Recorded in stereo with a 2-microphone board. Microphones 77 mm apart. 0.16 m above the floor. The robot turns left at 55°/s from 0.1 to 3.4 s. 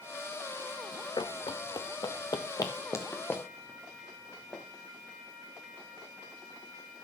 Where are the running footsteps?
80° left, 0.6 m; by 4.6 s 20° left (ahead or behind), 3 m.